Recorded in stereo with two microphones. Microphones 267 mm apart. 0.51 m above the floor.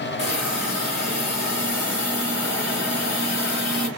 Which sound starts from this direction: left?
A hiss, at 0.2 s.